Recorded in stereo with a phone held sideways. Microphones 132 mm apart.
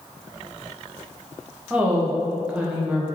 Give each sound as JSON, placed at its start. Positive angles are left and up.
{"t": 1.7, "sound": "a woman speaking", "side_deg": -10, "distance_m": 0.8}